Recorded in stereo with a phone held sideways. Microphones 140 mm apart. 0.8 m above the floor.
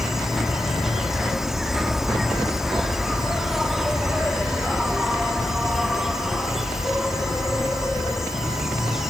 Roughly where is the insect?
Centre.